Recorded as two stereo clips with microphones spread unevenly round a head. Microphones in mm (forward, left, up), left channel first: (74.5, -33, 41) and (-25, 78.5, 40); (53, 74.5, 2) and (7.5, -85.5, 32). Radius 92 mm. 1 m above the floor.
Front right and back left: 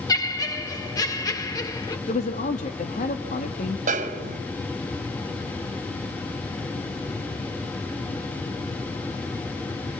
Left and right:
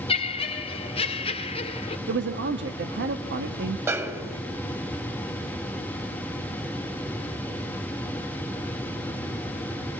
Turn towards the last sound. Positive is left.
turn(degrees=175)